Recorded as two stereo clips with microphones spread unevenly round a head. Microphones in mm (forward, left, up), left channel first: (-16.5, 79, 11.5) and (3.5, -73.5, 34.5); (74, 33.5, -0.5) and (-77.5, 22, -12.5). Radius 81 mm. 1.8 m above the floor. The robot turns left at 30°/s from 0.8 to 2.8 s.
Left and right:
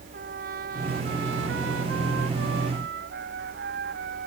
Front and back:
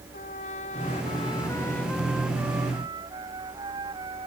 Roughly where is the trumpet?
Ahead right.